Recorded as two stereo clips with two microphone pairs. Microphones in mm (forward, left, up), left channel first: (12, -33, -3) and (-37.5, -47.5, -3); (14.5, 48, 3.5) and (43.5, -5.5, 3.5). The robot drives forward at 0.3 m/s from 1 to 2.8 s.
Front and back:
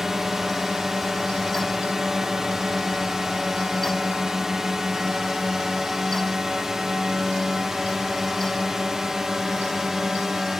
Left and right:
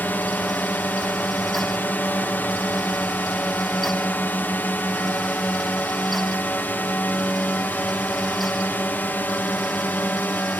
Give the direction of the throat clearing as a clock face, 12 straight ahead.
No throat clearing in this recording.